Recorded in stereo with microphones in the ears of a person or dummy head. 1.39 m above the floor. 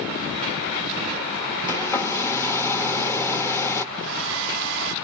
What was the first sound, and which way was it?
A hair dryer, 15° left (ahead or behind).